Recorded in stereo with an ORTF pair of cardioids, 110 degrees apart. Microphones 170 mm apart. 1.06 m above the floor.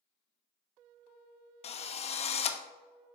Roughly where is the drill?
Ahead left.